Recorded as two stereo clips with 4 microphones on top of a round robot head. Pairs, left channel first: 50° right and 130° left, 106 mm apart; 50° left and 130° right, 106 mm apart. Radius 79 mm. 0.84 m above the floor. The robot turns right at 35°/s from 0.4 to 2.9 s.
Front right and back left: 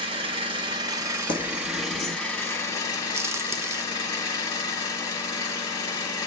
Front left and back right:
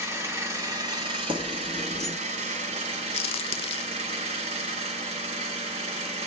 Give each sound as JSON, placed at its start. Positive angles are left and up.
{"t": 0.0, "sound": "an engine running", "azimuth_deg": 165, "distance_m": 0.9}
{"t": 1.3, "sound": "keys jangling", "azimuth_deg": -90, "distance_m": 1.0}
{"t": 3.1, "sound": "a crack", "azimuth_deg": 65, "distance_m": 0.5}